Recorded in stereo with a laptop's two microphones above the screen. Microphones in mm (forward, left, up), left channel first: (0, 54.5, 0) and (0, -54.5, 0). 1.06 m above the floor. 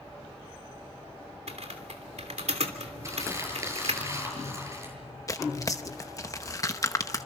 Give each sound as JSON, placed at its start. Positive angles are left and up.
{"t": 1.5, "sound": "typing on a keyboard", "side_deg": -80, "distance_m": 3.0}
{"t": 3.0, "sound": "crumpling", "side_deg": -30, "distance_m": 8.5}
{"t": 5.3, "sound": "tearing paper", "side_deg": 30, "distance_m": 0.9}